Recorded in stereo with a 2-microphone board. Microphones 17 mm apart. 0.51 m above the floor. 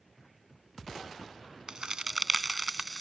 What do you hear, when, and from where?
1.7 s a crack: 45° right (ahead or behind)